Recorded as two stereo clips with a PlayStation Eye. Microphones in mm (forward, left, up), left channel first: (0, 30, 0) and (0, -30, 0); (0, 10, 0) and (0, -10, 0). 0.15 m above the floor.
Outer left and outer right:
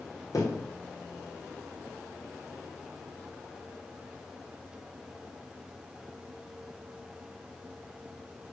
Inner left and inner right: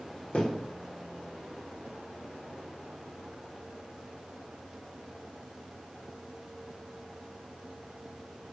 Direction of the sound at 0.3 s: 80° left.